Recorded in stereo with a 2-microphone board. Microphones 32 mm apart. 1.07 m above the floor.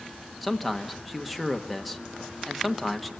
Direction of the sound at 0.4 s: Centre (ahead or behind).